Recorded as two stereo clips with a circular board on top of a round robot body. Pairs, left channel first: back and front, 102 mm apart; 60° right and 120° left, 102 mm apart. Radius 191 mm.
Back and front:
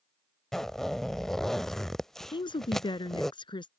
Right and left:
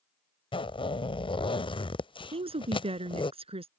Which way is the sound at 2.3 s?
140° left.